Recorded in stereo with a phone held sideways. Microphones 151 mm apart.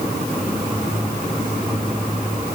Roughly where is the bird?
I don't hear a bird.